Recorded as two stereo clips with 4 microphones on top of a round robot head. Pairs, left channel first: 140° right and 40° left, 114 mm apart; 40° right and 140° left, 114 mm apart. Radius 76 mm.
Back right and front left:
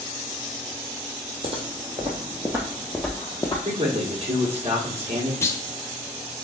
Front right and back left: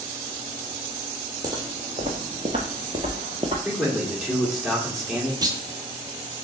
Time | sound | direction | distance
1.4 | footsteps | 85° left | 1.1 m
3.6 | a man speaking | 50° left | 1.6 m
5.4 | a clunk | 165° left | 0.7 m